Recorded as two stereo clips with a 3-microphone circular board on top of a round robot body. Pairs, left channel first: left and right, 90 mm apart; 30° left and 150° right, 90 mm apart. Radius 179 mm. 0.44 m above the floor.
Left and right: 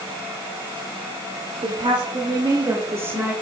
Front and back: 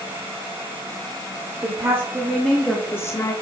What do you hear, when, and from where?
1.6 s a woman speaking: 105° right, 2.5 m; by 3.3 s 20° right, 2 m